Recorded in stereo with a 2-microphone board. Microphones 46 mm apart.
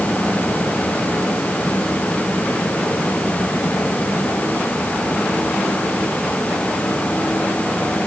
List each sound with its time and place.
Only background noise.